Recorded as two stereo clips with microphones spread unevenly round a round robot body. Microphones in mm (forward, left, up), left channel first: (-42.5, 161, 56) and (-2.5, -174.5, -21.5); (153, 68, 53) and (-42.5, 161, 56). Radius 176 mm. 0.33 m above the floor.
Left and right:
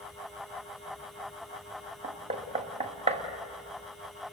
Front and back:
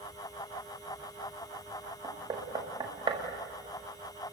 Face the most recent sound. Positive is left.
turn(degrees=-140)